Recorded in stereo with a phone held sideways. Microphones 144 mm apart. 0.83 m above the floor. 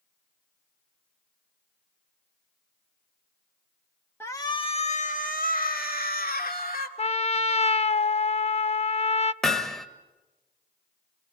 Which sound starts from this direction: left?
A trumpet, at 7.0 s.